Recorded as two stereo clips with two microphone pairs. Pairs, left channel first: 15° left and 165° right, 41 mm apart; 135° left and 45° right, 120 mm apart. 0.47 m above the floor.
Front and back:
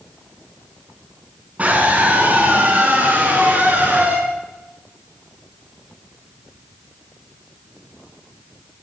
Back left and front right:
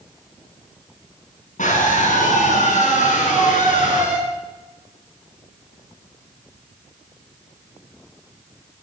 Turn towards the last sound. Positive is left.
turn(degrees=145)